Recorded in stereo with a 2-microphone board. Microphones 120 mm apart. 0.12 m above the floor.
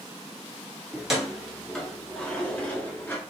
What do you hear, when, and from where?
0.9 s keys jangling: 5° right (ahead or behind), 1.4 m; by 3.2 s 15° left (ahead or behind), 1.2 m